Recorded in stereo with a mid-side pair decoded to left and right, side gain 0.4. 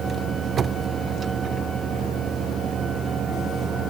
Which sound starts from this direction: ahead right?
A fan, at 0.0 s.